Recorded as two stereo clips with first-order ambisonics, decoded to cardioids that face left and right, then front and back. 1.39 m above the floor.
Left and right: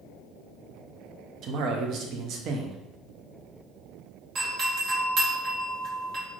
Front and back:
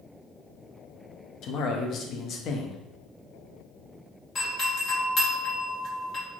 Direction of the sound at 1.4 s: 50° right.